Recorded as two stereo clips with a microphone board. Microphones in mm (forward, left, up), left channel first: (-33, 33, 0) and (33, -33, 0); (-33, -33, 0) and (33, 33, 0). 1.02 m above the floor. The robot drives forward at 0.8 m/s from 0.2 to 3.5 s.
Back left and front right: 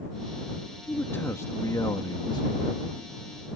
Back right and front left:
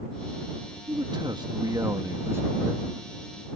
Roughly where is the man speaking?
Ahead left.